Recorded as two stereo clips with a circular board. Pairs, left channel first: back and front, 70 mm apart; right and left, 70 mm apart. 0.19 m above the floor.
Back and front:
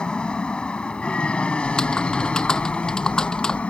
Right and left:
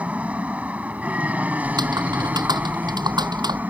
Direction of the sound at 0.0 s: 125° left.